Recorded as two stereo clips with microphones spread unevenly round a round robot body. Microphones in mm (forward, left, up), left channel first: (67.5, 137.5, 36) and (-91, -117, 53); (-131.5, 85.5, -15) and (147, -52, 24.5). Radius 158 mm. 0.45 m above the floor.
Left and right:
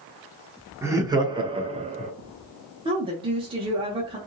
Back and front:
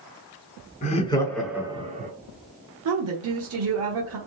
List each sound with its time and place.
0.8 s laughter: 160° left, 0.8 m; by 2.1 s 70° right, 0.8 m
2.9 s a woman speaking: 50° right, 0.9 m